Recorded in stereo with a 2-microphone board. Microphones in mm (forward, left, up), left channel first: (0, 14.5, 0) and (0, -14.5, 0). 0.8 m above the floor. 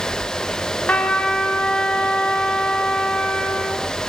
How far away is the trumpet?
About 1.4 m.